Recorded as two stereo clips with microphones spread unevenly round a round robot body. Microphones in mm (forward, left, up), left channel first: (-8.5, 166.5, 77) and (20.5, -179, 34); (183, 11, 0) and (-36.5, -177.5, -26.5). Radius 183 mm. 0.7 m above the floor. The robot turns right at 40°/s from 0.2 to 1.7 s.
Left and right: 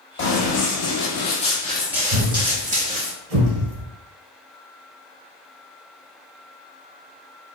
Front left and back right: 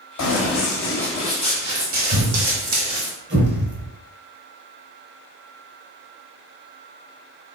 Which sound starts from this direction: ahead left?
Running footsteps, at 0.2 s.